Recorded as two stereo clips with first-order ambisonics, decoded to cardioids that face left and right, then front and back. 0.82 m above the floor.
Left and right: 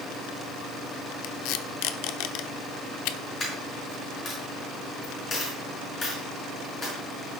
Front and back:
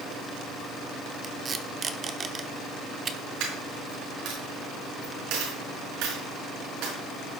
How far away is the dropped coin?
About 5 m.